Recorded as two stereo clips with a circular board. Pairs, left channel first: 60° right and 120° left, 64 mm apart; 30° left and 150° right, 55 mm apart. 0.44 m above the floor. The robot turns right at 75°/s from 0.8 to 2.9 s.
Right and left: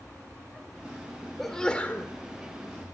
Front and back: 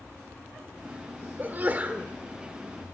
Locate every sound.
1.4 s a sneeze: 145° right, 1.5 m; by 2.1 s 95° right, 1.5 m